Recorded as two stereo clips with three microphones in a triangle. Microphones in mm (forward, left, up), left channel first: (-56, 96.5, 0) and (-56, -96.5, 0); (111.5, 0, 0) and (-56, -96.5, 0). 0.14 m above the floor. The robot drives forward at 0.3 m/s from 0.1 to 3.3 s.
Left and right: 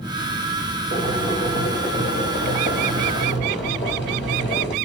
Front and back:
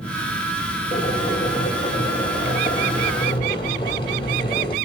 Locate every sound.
0.9 s boiling: 85° left, 4.5 m; by 4.8 s 95° left, 4.5 m